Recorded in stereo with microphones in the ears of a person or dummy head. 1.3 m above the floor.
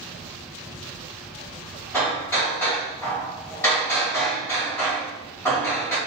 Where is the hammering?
10° left (ahead or behind), 1.4 m.